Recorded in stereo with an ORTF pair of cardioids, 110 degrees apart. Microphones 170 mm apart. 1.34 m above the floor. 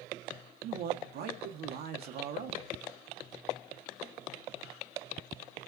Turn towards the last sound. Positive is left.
turn(degrees=-70)